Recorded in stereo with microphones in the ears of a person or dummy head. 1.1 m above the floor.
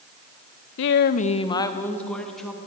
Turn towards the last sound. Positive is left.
turn(degrees=0)  # may be behind; listen again after turning